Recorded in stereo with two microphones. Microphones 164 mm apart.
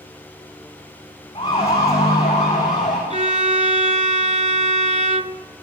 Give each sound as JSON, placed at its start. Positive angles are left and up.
{"t": 1.4, "sound": "a siren", "side_deg": 35, "distance_m": 8.0}
{"t": 3.1, "sound": "a violin", "side_deg": -45, "distance_m": 0.6}